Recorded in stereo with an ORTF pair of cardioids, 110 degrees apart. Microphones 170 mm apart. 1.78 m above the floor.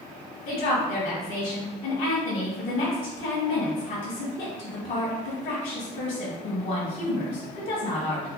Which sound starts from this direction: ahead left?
A woman speaking, at 0.5 s.